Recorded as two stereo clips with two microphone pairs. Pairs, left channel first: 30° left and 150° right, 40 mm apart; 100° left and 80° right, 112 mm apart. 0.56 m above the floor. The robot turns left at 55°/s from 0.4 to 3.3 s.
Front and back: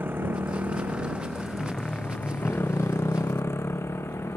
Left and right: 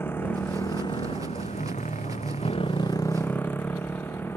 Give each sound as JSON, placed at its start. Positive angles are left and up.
{"t": 0.0, "sound": "a motorcycle", "azimuth_deg": 175}